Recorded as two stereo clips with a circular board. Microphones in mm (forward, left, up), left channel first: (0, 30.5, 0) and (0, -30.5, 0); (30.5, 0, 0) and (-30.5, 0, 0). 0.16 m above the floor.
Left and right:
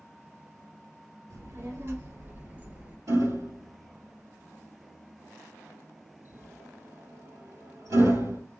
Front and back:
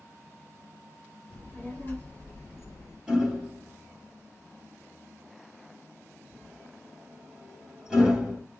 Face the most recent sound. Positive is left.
turn(degrees=-105)